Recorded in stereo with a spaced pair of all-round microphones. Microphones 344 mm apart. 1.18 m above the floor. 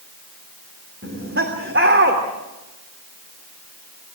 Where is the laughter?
35° right (ahead or behind), 3 m.